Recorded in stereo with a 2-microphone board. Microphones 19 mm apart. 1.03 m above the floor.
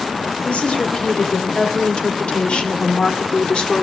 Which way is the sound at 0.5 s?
65° left (ahead or behind).